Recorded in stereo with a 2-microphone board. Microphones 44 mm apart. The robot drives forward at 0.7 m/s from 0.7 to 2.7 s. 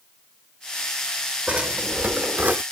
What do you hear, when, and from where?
1.5 s a drawer: 30° right (ahead or behind); by 2.6 s 50° right (ahead or behind)